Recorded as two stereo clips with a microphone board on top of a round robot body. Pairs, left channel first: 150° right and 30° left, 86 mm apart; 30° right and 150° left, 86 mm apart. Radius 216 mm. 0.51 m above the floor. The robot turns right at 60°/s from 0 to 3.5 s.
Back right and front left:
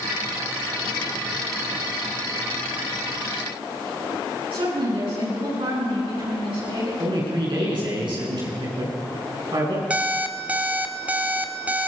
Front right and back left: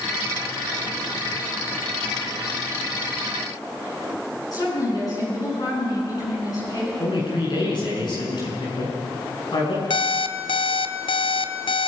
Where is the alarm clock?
45° right, 1.3 m.